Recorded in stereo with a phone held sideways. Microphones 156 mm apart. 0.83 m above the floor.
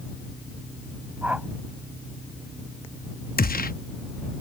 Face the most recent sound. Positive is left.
turn(degrees=70)  # may be behind; listen again after turning